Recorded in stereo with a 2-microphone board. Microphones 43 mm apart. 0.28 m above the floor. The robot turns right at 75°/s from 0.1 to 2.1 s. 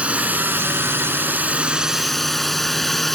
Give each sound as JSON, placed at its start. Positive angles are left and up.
{"t": 0.0, "sound": "a drone", "azimuth_deg": -145}